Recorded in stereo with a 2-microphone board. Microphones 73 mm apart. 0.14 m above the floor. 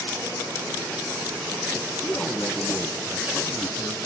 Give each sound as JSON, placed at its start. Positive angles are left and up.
{"t": 2.0, "sound": "a man speaking", "side_deg": 20, "distance_m": 1.8}